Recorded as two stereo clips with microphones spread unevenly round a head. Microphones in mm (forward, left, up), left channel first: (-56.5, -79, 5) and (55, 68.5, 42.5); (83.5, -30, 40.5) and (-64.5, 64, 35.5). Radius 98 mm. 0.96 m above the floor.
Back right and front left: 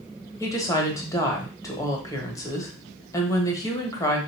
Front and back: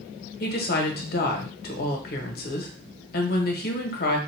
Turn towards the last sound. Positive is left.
turn(degrees=-60)